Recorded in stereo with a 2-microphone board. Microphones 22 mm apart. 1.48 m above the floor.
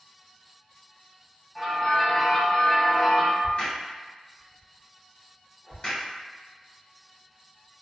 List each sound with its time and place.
1.6 s a bell: 15° left (ahead or behind), 1.4 m
3.4 s a crack: 45° left (ahead or behind), 1.4 m